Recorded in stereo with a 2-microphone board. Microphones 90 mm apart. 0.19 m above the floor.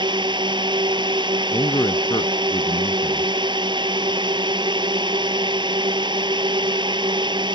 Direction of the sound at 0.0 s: 55° right (ahead or behind).